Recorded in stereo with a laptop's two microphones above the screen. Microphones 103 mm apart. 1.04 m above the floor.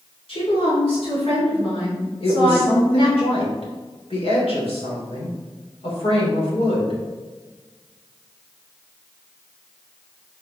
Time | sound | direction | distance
0.3 | a woman speaking | 60° left (ahead or behind) | 3 m
2.2 | a woman speaking | 70° left (ahead or behind) | 3 m